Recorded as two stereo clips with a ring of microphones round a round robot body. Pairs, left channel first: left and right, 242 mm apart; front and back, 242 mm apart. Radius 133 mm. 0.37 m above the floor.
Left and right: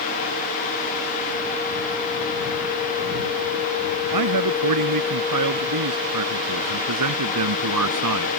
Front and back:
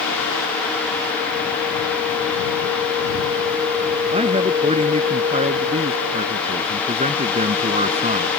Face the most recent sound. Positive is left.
turn(degrees=-115)